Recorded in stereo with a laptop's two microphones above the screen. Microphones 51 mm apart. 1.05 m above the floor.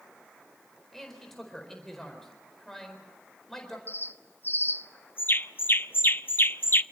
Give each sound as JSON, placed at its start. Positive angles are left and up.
{"t": 0.9, "sound": "a man speaking", "side_deg": 10, "distance_m": 4.5}
{"t": 3.9, "sound": "a bird", "side_deg": 40, "distance_m": 0.6}